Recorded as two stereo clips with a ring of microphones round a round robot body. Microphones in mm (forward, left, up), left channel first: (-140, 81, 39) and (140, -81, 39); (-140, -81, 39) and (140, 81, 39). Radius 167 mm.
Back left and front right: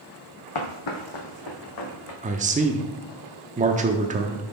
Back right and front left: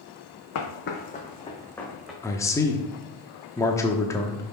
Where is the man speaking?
75° right, 1.0 m.